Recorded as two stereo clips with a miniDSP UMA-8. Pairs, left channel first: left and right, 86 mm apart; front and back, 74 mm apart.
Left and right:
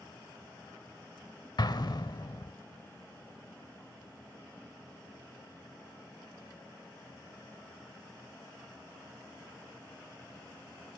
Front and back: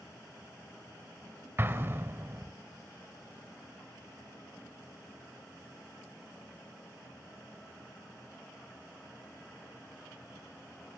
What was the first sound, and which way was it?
An explosion, 125° left.